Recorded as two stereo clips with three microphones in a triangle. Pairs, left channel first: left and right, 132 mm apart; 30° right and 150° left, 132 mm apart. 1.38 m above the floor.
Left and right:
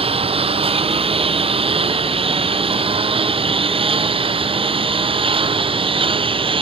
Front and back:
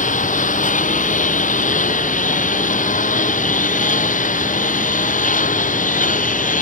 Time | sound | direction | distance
0.0 | a lawn mower | 45° right | ?